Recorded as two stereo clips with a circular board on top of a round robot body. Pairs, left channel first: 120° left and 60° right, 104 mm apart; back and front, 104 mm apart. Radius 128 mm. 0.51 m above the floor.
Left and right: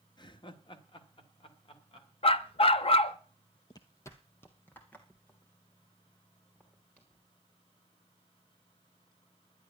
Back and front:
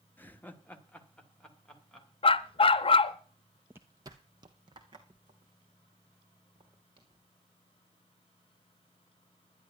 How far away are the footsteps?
About 0.6 m.